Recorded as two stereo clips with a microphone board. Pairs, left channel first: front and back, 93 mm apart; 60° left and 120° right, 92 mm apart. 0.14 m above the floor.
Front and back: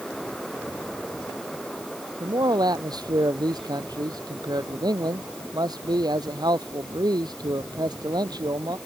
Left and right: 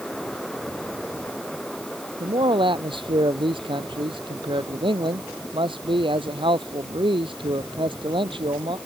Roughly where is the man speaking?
Behind right.